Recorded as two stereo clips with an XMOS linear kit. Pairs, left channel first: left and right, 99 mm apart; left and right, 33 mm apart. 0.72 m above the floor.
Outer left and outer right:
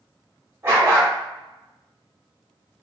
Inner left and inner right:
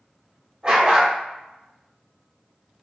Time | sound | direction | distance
0.6 | a dog barking | 25° right (ahead or behind) | 1.4 m